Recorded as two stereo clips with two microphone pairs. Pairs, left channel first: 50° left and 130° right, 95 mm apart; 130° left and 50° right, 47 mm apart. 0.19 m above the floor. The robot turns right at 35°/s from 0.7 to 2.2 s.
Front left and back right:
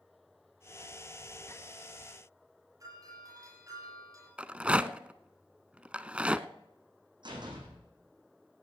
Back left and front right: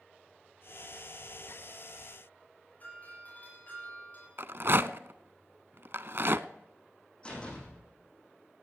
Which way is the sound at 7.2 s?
160° right.